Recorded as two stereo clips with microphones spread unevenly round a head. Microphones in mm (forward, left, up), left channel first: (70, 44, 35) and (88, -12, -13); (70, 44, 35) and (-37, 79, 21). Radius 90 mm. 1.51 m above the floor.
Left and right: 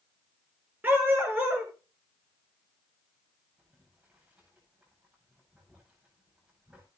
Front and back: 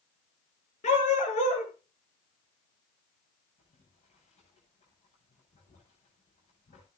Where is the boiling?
Straight ahead, 9.5 m.